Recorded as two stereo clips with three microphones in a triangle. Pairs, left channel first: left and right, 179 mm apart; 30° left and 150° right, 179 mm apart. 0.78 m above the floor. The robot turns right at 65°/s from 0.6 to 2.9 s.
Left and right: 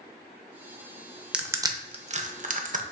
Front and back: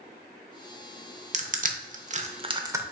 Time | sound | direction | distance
1.3 | crushing | 175° right | 0.6 m